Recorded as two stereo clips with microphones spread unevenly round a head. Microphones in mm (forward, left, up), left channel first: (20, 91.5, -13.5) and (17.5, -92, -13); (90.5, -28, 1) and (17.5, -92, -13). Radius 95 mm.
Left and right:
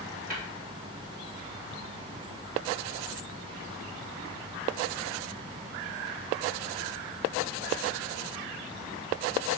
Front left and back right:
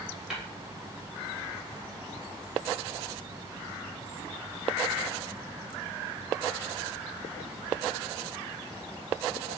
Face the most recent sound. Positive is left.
turn(degrees=-50)